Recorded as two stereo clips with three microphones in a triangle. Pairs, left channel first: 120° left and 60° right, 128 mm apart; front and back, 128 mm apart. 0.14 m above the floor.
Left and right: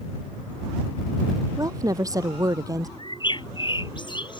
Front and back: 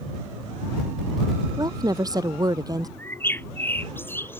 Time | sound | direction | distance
1.6 | a woman speaking | 120° right | ?
3.0 | a bird | 70° left | ?